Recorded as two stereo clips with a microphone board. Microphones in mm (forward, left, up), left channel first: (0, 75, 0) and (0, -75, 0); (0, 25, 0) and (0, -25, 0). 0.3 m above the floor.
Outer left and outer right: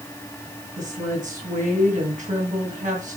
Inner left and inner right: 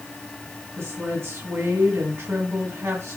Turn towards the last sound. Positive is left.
turn(degrees=-55)  # may be behind; listen again after turning